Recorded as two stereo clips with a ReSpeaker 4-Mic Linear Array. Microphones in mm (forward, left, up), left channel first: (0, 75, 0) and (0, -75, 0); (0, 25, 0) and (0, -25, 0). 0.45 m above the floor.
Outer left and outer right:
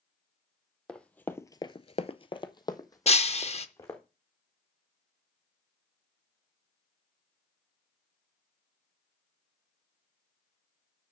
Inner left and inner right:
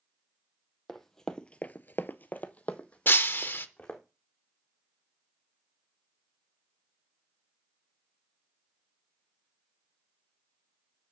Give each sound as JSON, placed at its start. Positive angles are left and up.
{"t": 0.9, "sound": "running footsteps", "side_deg": 5, "distance_m": 1.1}
{"t": 3.1, "sound": "breaking glass", "side_deg": 45, "distance_m": 0.6}